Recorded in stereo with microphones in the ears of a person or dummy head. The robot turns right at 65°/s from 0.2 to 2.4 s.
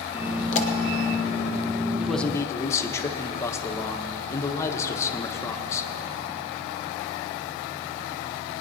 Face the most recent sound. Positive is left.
turn(degrees=20)  # may be behind; listen again after turning